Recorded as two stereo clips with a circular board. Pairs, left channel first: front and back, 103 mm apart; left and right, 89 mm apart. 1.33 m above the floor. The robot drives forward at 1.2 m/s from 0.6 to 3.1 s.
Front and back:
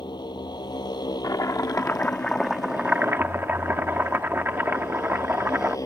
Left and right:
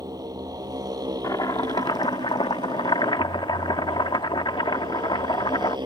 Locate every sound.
0.0 s a motorcycle: 45° right; by 5.9 s 55° right
1.2 s chopping: 50° left; by 5.8 s 110° left